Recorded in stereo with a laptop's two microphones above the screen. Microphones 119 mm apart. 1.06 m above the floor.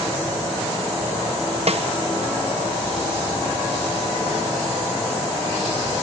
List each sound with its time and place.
1.7 s a snare drum: 60° right (ahead or behind), 1.2 m